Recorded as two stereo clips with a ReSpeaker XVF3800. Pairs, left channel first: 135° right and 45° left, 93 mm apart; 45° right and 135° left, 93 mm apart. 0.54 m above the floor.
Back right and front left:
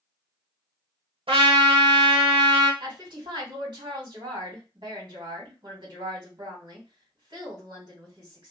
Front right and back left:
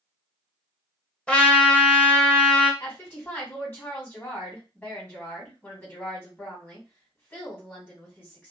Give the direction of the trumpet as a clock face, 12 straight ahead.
11 o'clock.